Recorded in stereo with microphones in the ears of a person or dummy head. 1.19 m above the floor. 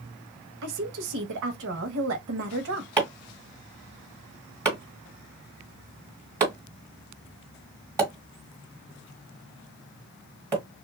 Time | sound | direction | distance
0.6 | a woman speaking | 65° right (ahead or behind) | 0.9 m
3.0 | chopping | 15° right (ahead or behind) | 1.8 m